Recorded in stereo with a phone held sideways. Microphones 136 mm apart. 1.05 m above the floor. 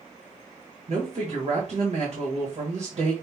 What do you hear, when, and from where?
0.9 s a woman speaking: 60° right (ahead or behind), 1.4 m